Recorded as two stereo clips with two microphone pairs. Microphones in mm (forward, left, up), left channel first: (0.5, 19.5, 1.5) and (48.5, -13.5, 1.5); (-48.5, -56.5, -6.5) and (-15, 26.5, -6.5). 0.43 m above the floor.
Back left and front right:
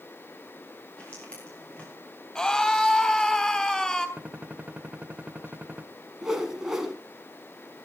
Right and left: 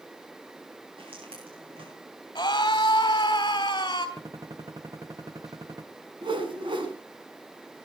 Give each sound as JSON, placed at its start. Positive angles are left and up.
{"t": 1.0, "sound": "footsteps", "azimuth_deg": 75, "distance_m": 6.5}
{"t": 2.4, "sound": "a scream", "azimuth_deg": -145, "distance_m": 3.0}
{"t": 4.2, "sound": "a gunshot", "azimuth_deg": 25, "distance_m": 0.9}
{"t": 6.2, "sound": "a whoosh", "azimuth_deg": 45, "distance_m": 2.0}